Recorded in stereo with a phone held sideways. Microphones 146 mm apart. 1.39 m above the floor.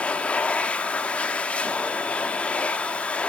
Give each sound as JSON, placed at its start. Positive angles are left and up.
{"t": 0.0, "sound": "a machine running", "side_deg": 10, "distance_m": 1.2}